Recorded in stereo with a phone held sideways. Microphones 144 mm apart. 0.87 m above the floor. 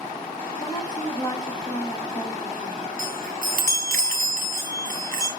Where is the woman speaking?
30° left (ahead or behind), 7.5 m.